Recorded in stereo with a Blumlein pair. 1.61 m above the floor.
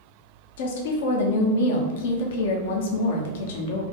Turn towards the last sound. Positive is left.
turn(degrees=55)